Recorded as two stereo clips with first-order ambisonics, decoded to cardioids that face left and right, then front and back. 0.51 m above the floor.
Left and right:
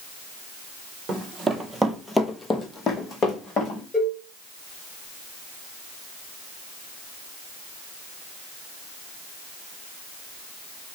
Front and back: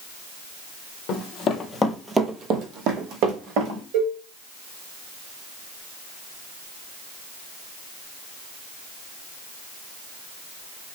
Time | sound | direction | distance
1.1 | running footsteps | 25° right | 0.8 m
3.9 | a cowbell | 160° left | 1.5 m